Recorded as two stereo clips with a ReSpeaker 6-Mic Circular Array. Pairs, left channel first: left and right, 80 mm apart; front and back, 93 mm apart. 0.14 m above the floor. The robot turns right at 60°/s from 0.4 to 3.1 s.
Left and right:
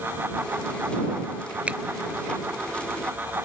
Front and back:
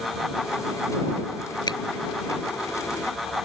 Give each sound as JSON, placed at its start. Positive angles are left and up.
{"t": 1.7, "sound": "a finger snap", "azimuth_deg": -20}